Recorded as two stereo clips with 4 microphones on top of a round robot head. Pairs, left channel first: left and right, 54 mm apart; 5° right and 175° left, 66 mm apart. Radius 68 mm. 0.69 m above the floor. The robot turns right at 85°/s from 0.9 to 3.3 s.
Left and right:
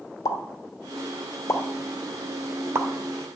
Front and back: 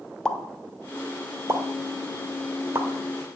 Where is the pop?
75° left, 1.3 m; by 2.9 s 115° right, 1.3 m.